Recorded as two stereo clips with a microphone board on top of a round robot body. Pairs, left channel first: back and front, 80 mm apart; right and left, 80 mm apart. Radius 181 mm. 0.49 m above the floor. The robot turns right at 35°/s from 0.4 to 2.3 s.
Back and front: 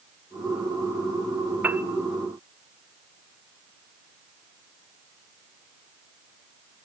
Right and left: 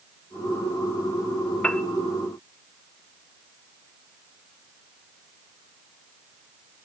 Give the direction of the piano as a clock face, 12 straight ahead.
1 o'clock.